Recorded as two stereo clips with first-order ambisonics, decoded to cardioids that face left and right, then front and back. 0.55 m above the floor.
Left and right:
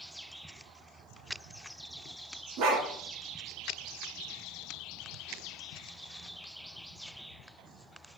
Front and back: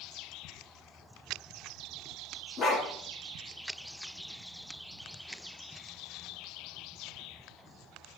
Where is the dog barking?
60° right, 2.5 m.